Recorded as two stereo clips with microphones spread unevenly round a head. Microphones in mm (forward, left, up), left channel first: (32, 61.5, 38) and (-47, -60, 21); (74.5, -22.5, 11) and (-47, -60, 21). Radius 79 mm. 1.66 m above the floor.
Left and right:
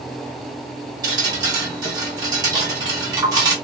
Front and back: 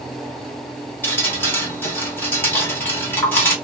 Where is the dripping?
55° right, 1.4 m.